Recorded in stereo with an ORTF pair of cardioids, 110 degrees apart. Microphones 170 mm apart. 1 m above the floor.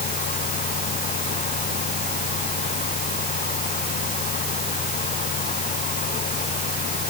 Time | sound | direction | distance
0.0 | a fan | 55° left | ?